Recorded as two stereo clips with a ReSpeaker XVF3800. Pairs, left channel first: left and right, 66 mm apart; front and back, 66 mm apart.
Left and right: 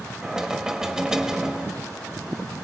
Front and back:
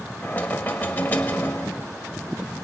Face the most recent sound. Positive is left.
turn(degrees=-20)